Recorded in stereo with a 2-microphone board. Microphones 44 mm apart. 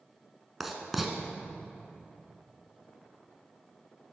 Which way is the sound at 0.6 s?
5° right (ahead or behind).